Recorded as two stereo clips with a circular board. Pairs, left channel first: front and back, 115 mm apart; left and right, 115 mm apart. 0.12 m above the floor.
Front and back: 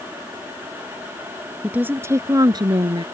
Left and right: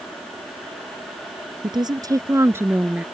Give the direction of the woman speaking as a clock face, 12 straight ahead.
4 o'clock.